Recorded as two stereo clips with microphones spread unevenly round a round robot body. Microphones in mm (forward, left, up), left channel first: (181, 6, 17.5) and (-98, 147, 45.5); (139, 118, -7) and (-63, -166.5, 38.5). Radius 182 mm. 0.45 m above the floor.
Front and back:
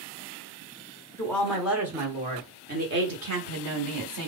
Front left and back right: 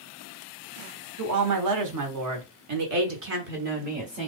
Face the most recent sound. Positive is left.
turn(degrees=160)